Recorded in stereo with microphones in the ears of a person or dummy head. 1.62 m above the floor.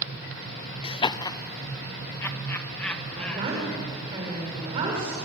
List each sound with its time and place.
0.8 s laughter: 30° left (ahead or behind), 0.7 m; by 3.7 s 10° left (ahead or behind), 3 m
3.1 s a woman speaking: 30° right (ahead or behind), 7 m